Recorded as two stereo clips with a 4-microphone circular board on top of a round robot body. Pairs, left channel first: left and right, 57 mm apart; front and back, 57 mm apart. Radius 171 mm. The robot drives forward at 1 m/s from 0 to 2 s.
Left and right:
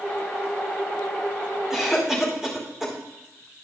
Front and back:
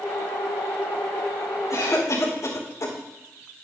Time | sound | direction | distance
1.7 | a cough | 5° right | 4.5 m